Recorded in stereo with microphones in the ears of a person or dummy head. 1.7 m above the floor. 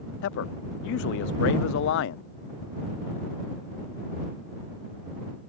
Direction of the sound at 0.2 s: 65° left (ahead or behind).